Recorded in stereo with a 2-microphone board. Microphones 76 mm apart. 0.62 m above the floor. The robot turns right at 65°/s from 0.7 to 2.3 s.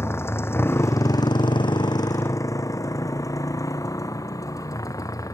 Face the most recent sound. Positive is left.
turn(degrees=50)  # may be behind; listen again after turning